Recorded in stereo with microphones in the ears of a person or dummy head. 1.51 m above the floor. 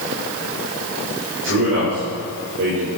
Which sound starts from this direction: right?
A man speaking, at 1.4 s.